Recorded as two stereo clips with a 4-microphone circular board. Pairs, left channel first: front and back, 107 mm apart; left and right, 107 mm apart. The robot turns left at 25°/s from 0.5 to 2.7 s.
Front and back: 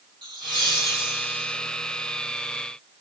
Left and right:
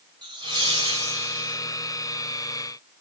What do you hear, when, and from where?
0.2 s laughter: 140° right, 3.5 m; by 1.6 s 165° right, 3.5 m